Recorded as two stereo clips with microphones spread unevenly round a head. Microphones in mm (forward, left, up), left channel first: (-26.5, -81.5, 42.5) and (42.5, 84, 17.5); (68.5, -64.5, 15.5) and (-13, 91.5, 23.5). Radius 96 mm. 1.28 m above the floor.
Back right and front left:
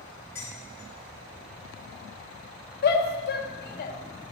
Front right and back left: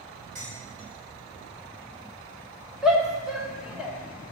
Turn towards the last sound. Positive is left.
turn(degrees=-155)